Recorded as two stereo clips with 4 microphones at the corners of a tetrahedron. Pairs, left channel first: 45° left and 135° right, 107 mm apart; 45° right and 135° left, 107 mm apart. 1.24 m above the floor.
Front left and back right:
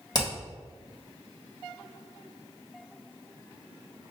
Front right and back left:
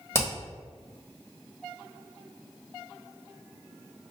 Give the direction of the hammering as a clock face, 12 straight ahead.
12 o'clock.